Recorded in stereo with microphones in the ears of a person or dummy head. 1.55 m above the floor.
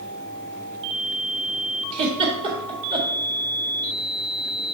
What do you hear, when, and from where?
1.9 s a giggle: 30° right (ahead or behind), 1.6 m